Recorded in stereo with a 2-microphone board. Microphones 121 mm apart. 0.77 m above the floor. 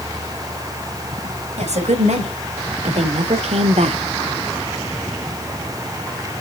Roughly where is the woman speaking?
Right.